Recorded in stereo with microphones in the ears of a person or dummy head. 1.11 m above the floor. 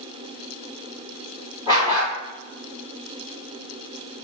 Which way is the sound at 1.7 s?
15° right (ahead or behind).